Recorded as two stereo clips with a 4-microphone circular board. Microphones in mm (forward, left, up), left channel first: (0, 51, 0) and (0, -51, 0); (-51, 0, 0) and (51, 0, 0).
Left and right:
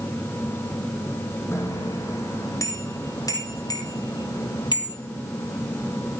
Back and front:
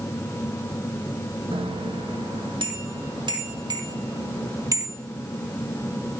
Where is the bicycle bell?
25° left, 4 m; by 5.0 s 55° left, 2.5 m.